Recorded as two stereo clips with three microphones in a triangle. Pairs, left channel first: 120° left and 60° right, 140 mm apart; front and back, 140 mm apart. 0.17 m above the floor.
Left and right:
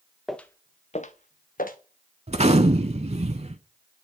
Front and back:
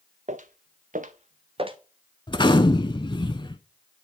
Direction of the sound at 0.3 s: 150° right.